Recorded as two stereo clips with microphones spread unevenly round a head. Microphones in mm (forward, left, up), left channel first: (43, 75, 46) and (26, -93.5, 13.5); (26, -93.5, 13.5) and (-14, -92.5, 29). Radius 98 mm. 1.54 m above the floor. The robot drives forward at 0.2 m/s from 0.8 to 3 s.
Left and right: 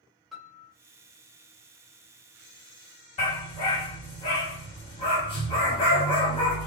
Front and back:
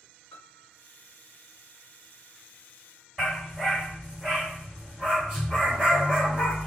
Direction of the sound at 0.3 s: 5° left.